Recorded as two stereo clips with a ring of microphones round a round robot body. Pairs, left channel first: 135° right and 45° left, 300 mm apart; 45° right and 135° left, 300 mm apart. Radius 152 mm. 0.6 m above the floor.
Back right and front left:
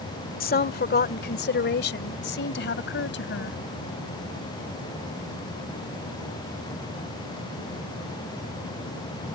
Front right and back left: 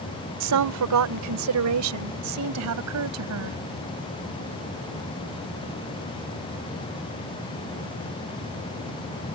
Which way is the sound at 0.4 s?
165° left.